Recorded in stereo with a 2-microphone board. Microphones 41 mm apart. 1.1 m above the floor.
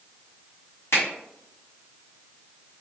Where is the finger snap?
80° left, 1.6 m.